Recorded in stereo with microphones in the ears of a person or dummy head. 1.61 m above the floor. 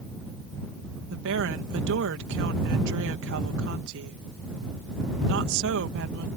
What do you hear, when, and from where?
1.1 s a woman speaking: 70° right (ahead or behind)